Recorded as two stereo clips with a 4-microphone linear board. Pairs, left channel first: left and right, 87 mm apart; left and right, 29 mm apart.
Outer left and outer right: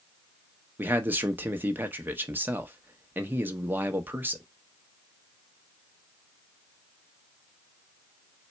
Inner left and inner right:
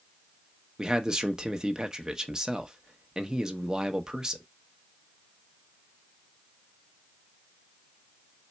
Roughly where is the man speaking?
Right.